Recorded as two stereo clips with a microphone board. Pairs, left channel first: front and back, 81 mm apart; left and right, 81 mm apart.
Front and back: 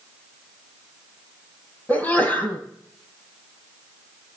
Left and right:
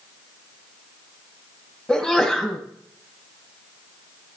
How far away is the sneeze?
About 1.5 m.